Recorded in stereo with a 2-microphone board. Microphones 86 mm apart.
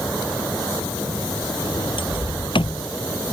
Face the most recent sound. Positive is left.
turn(degrees=75)  # may be behind; listen again after turning